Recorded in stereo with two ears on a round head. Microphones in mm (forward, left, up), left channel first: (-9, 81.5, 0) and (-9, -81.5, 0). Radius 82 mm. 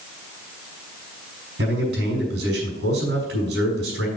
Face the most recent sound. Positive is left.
turn(degrees=-70)  # may be behind; listen again after turning